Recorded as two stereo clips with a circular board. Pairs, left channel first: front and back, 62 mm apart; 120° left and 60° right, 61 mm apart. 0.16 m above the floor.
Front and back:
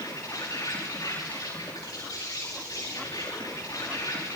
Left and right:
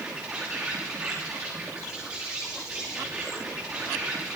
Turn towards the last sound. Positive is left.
turn(degrees=5)